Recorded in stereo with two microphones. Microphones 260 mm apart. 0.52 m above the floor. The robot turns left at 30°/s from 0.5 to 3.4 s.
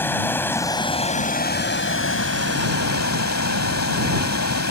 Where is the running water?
170° left; by 4.7 s 85° left.